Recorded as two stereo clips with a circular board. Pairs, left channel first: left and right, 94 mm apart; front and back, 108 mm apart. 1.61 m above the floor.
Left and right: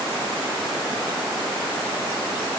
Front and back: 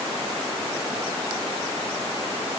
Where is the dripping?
I don't hear dripping.